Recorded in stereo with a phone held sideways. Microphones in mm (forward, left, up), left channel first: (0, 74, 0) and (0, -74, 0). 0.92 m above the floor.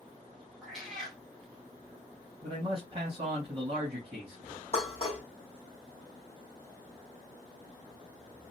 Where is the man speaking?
40° right (ahead or behind), 1.3 m.